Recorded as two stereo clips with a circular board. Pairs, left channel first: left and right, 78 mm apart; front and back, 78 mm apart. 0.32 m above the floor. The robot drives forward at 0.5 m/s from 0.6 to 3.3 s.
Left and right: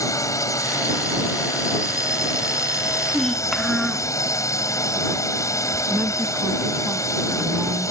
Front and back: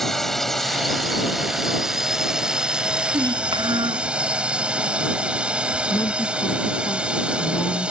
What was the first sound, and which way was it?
A drone, 85° left.